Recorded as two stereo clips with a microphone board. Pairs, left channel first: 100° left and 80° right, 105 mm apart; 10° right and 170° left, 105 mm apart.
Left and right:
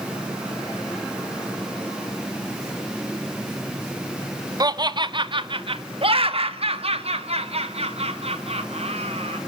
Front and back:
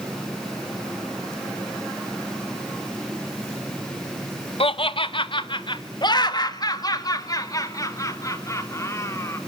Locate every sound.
4.6 s laughter: 30° right, 1.1 m; by 9.4 s 75° right, 3 m